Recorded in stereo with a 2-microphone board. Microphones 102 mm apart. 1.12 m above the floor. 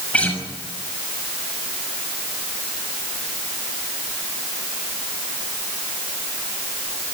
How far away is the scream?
I don't hear a scream.